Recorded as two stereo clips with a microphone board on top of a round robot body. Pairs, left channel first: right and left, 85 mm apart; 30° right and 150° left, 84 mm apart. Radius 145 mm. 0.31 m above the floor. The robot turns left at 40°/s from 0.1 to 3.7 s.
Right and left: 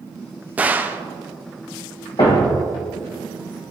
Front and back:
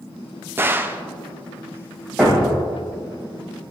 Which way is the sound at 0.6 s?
135° left.